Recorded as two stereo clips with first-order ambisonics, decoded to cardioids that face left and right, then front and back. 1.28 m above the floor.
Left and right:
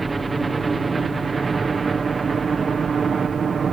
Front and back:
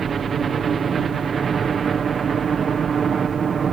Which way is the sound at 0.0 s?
150° right.